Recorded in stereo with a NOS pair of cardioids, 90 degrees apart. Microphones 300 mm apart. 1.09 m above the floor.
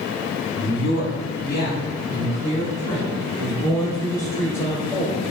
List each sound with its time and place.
0.5 s a man speaking: 45° left, 1.7 m; by 5.2 s 10° left, 3.5 m